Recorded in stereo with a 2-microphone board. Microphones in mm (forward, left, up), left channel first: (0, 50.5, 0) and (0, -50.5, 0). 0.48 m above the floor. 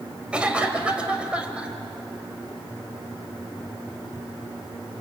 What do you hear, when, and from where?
0.3 s a cough: 10° right (ahead or behind), 2 m